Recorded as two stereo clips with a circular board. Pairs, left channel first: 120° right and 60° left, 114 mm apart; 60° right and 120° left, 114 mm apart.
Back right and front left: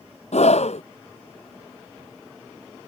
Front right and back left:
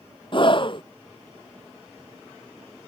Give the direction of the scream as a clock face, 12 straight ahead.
3 o'clock.